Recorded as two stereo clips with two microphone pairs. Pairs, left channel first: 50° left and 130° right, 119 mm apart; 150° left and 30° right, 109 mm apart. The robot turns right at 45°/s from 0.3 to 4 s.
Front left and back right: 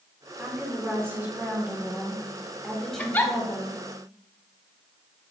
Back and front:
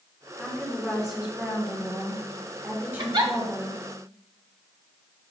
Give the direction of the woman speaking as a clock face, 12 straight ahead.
5 o'clock.